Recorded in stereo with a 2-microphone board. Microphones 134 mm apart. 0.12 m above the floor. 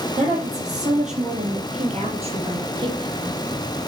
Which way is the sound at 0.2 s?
70° right (ahead or behind).